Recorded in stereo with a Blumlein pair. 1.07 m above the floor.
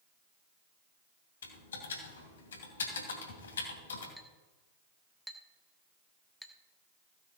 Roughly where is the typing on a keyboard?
Ahead left.